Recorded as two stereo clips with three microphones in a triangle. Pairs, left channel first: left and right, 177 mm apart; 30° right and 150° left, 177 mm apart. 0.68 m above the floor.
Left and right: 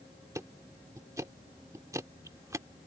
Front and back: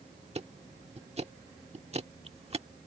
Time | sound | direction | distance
0.3 | ticking | 160° right | ?